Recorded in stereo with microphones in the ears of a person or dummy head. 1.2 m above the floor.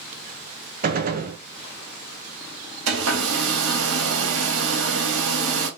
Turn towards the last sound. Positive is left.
turn(degrees=-80)